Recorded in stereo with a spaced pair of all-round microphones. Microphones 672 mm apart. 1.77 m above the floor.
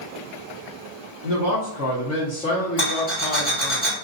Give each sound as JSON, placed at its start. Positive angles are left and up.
{"t": 1.2, "sound": "a man speaking", "side_deg": -30, "distance_m": 0.9}
{"t": 2.8, "sound": "a rattle", "side_deg": 10, "distance_m": 1.7}